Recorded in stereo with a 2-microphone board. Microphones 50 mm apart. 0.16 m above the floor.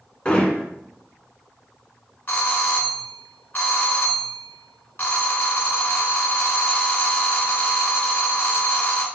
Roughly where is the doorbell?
Left.